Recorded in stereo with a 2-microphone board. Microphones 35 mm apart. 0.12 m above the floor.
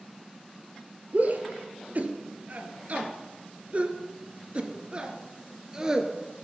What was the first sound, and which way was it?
A shout, 50° right (ahead or behind).